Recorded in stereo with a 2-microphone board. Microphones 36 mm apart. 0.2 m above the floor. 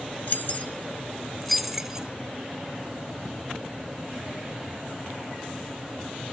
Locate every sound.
0.3 s keys jangling: 50° left (ahead or behind), 1.8 m; by 2.1 s 20° right (ahead or behind), 1.4 m